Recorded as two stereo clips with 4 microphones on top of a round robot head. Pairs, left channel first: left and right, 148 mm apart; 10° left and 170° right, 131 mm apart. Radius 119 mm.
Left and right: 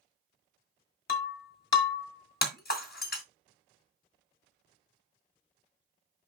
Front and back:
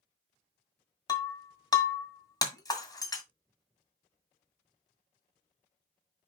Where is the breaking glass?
75° left, 1.9 m.